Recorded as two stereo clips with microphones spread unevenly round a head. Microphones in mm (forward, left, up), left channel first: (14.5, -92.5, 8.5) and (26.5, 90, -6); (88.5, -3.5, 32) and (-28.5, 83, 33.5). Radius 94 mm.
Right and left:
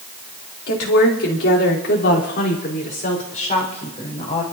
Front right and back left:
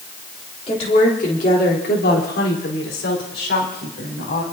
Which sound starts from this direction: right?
A woman speaking, at 0.7 s.